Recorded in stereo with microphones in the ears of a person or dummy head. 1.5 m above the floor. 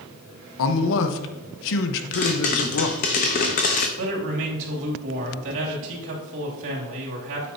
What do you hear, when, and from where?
0.6 s a man speaking: 70° left (ahead or behind), 1.0 m
2.1 s a pop: 35° left (ahead or behind), 0.8 m
4.0 s a man speaking: 65° right (ahead or behind), 2.5 m